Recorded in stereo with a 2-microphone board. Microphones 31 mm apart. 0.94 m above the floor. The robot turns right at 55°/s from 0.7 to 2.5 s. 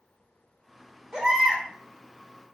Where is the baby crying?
30° right (ahead or behind), 1.1 m; by 1.6 s 5° right (ahead or behind), 1.1 m.